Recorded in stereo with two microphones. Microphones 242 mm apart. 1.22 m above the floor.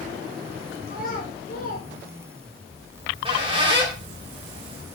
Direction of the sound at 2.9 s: 20° right (ahead or behind).